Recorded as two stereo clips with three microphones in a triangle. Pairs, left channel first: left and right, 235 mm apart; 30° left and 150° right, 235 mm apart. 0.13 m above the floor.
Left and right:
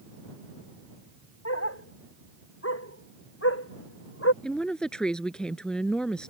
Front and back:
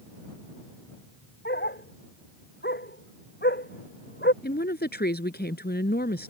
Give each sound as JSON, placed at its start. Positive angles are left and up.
{"t": 1.4, "sound": "a dog barking", "azimuth_deg": 75}
{"t": 4.4, "sound": "a woman speaking", "azimuth_deg": 5}